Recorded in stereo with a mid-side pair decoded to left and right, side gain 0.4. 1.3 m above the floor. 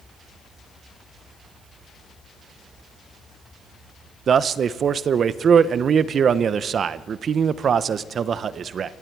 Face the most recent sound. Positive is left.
turn(degrees=-55)